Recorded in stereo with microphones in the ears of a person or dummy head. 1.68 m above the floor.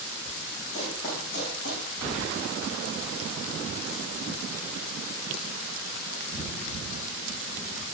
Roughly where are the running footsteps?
Left.